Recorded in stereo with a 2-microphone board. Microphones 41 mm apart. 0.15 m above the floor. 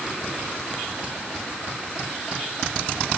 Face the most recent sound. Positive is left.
No sound to turn to.